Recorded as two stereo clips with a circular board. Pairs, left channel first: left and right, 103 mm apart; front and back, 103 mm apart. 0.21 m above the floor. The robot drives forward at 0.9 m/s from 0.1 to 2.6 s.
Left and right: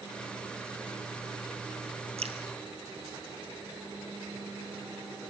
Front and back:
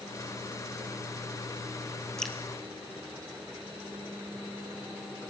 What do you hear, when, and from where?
2.2 s dripping: 85° right, 3 m